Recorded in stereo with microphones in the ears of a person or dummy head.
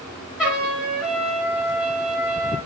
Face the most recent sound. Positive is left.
turn(degrees=-5)  # may be behind; listen again after turning